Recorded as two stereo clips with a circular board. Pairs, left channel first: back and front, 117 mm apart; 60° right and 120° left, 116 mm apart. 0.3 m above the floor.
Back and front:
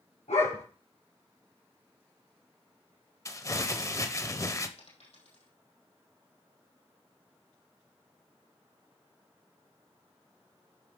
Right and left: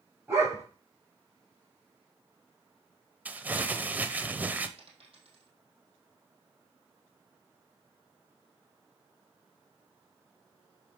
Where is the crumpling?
175° left, 0.8 m.